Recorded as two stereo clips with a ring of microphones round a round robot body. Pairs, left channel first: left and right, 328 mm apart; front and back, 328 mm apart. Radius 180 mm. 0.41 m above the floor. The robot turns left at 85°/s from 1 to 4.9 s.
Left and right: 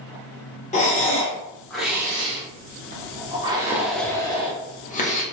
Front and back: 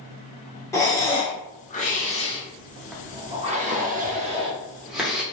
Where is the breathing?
70° left, 0.9 m; by 5.2 s 95° left, 0.9 m.